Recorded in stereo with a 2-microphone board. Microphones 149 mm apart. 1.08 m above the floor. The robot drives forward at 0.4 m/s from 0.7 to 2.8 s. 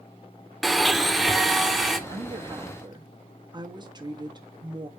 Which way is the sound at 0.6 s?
Centre (ahead or behind).